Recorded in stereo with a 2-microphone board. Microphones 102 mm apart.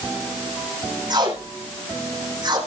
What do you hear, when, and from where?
1.1 s tape being pulled: 45° right (ahead or behind), 7.5 m